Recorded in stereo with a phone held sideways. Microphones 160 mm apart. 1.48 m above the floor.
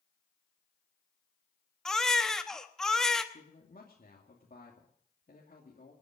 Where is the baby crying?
5° left (ahead or behind), 1.0 m.